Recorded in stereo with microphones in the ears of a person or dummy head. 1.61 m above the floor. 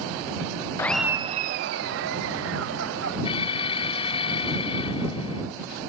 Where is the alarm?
25° left (ahead or behind).